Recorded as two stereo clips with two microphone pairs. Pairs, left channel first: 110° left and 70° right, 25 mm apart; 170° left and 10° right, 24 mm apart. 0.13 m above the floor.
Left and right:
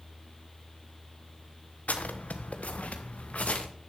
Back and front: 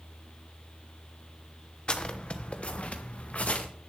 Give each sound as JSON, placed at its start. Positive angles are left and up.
{"t": 1.9, "sound": "footsteps", "azimuth_deg": 120, "distance_m": 1.2}